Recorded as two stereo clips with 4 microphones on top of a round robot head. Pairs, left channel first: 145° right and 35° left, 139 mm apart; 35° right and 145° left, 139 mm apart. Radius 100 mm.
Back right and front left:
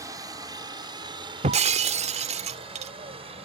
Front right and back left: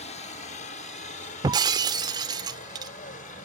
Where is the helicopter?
25° right; by 3.5 s 10° right.